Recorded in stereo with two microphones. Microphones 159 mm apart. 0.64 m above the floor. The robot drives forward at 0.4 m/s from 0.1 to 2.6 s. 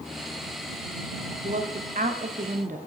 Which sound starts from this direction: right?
A woman speaking, at 1.4 s.